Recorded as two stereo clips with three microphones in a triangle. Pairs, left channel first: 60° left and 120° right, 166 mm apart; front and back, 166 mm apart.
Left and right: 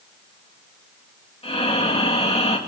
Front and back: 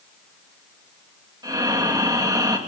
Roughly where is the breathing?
Behind left.